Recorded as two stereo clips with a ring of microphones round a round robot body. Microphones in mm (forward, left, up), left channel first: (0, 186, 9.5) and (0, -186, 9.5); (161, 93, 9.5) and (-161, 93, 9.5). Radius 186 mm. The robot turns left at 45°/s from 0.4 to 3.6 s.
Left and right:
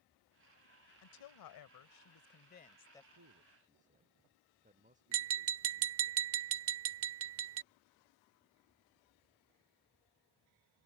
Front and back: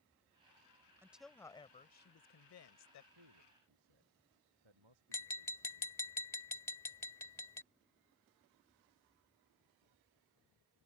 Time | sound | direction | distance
1.0 | a woman speaking | 100° left | ?
3.1 | a man speaking | 140° right | ?
5.1 | tapping | 75° right | ?